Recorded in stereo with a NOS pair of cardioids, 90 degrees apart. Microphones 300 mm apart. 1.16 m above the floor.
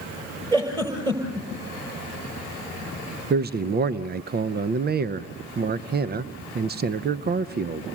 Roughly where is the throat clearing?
I don't hear throat clearing.